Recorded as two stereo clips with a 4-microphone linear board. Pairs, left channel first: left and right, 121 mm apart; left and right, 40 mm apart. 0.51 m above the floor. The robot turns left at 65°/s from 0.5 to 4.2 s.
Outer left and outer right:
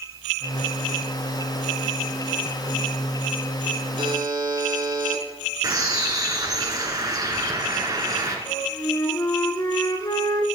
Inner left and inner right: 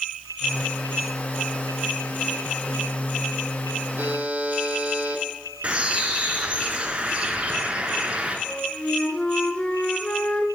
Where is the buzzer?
50° right (ahead or behind), 1.5 m; by 5.2 s 35° right (ahead or behind), 1.5 m.